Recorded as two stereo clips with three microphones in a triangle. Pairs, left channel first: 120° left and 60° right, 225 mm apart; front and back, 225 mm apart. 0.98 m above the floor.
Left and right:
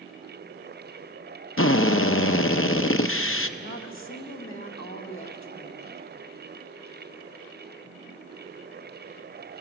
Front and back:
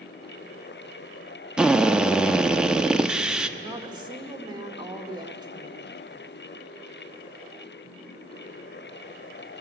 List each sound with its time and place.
1.6 s a drill: 95° left, 0.7 m
3.6 s a woman speaking: 110° left, 1.7 m